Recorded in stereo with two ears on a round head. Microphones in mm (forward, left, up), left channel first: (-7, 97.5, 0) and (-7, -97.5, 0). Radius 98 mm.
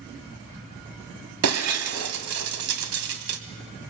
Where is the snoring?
I don't hear snoring.